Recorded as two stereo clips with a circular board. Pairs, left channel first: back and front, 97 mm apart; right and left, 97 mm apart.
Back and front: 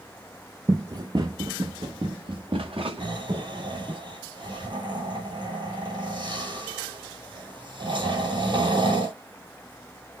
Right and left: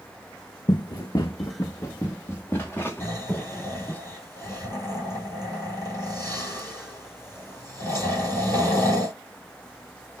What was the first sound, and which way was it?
Running footsteps, 50° right.